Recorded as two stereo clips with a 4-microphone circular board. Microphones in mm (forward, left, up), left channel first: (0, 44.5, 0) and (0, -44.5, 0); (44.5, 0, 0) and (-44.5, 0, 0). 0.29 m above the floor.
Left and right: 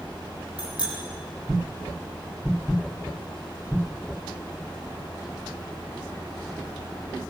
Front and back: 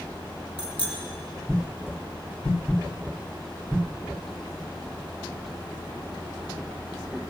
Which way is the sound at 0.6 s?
10° right.